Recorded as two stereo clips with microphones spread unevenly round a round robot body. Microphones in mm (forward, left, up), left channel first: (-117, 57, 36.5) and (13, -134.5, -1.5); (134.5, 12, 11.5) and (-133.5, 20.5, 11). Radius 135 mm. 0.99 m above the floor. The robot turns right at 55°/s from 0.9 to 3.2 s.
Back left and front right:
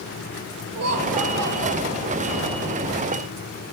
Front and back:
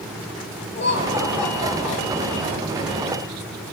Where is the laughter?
55° right, 2.5 m; by 2.7 s 50° left, 2.5 m.